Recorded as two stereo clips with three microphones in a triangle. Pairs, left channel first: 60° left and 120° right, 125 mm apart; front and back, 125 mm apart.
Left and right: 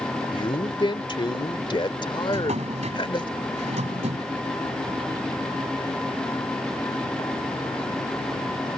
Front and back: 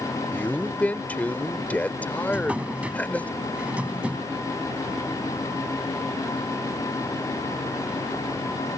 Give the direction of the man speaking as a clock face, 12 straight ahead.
10 o'clock.